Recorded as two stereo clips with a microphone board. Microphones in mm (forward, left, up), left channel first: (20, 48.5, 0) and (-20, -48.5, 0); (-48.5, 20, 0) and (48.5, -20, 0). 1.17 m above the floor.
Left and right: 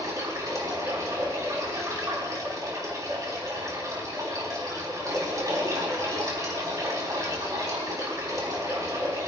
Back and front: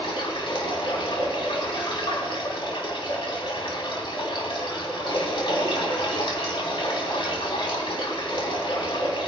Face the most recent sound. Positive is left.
turn(degrees=-170)